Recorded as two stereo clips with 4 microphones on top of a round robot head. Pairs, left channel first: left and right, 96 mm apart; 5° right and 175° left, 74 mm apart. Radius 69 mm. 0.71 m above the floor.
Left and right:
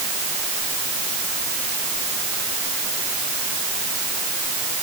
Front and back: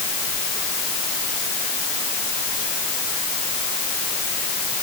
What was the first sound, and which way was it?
Only background noise.